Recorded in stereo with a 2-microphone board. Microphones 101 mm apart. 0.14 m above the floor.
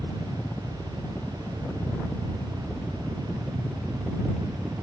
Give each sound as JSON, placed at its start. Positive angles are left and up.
{"t": 0.0, "sound": "a helicopter", "side_deg": 25}